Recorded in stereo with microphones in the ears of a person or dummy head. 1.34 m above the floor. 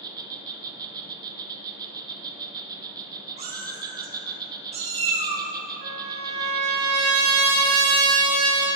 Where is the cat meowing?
40° right (ahead or behind), 1.4 m.